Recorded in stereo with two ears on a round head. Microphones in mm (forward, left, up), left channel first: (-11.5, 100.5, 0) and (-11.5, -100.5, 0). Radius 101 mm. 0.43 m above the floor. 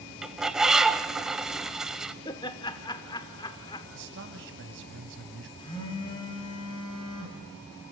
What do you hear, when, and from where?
0.2 s a bird: 5° right (ahead or behind), 0.8 m
2.2 s laughter: 20° left (ahead or behind), 0.9 m
3.9 s a man speaking: 55° right (ahead or behind), 2.5 m
5.6 s a phone buzzing: 20° left (ahead or behind), 4 m